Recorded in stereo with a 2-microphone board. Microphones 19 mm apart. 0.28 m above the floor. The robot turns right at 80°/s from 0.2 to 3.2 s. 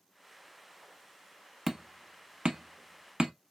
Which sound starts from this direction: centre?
Hammering, at 1.7 s.